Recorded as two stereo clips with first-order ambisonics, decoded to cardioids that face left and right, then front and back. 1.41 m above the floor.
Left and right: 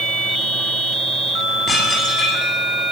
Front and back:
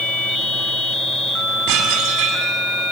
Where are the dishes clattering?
170° left, 8 m.